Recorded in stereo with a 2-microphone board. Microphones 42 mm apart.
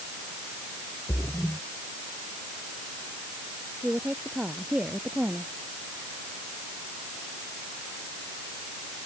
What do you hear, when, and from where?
1.1 s a splash: 45° left (ahead or behind)
3.8 s a woman speaking: 25° right (ahead or behind)